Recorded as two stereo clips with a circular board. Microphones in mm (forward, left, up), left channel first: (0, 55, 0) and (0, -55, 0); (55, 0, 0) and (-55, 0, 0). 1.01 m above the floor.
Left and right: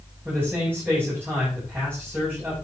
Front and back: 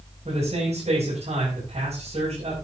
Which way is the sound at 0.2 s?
160° right.